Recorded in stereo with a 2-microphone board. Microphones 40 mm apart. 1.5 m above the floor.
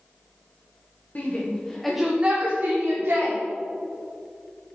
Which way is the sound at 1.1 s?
40° left (ahead or behind).